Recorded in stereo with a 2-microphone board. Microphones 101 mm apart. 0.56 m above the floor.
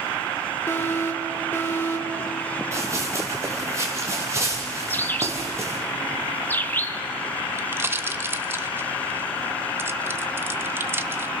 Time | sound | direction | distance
0.7 | an alarm | 25° left (ahead or behind) | 2.5 m
2.7 | running footsteps | 30° right (ahead or behind) | 4 m
4.9 | a bird | 20° left (ahead or behind) | 1.0 m
7.6 | a pop | 25° right (ahead or behind) | 0.9 m